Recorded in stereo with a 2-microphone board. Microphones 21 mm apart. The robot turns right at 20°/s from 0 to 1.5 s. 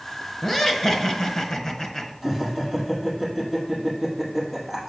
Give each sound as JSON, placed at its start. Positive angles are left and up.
{"t": 0.4, "sound": "laughter", "side_deg": 25, "distance_m": 1.2}
{"t": 2.2, "sound": "laughter", "side_deg": 5, "distance_m": 3.0}